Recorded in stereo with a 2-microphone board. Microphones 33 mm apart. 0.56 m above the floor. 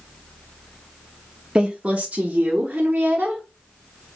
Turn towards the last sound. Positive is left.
turn(degrees=-50)  # may be behind; listen again after turning